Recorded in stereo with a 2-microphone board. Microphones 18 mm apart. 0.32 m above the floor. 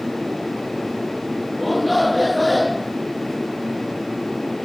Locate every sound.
1.6 s a shout: 5° right (ahead or behind)